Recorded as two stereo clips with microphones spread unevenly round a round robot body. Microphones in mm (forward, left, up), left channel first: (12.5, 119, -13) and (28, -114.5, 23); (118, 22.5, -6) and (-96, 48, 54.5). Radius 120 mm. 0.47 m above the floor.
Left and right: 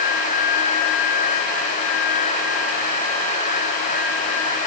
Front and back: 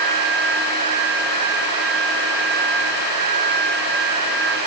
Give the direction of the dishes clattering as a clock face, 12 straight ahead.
I don't hear dishes clattering.